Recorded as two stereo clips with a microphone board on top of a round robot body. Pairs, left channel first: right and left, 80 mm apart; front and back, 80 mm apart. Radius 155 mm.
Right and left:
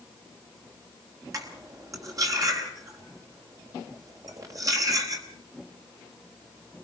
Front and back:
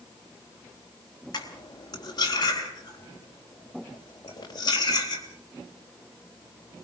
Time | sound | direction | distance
1.3 | cutlery clinking | 40° left | 3.5 m